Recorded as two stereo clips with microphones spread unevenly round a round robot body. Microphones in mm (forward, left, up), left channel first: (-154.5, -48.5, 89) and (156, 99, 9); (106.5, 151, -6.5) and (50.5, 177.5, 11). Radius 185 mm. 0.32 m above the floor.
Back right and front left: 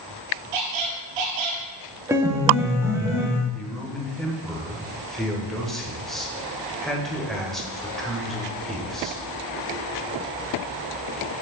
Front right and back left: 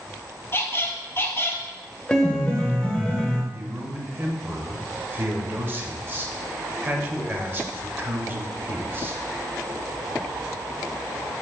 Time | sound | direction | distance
0.5 | a squeak | 35° left | 1.5 m
2.1 | a piano | 10° right | 1.0 m
3.5 | a man speaking | 95° left | 1.1 m